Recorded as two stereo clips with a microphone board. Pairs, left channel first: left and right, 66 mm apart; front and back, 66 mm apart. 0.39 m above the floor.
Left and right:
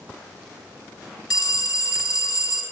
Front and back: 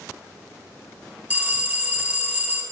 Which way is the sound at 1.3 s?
115° left.